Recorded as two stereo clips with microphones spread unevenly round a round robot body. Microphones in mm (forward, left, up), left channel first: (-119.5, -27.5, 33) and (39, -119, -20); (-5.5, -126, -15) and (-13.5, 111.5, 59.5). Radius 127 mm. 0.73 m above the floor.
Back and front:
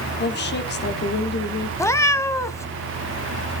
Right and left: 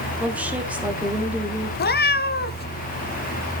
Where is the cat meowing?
145° right, 0.9 m.